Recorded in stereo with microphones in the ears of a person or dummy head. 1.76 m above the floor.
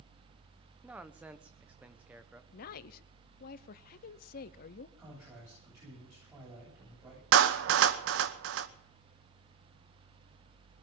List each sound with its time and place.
0.8 s a man speaking: 10° right (ahead or behind), 0.9 m
2.5 s a woman speaking: 55° left (ahead or behind), 0.8 m
5.0 s a man speaking: 20° right (ahead or behind), 9 m
7.3 s a clap: 65° right (ahead or behind), 0.9 m